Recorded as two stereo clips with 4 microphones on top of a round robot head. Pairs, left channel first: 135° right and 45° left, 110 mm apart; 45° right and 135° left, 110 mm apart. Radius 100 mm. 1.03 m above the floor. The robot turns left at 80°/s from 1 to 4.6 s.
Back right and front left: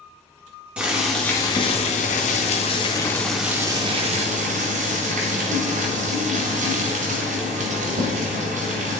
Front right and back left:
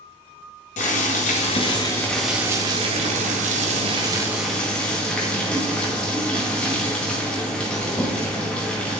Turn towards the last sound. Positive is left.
turn(degrees=35)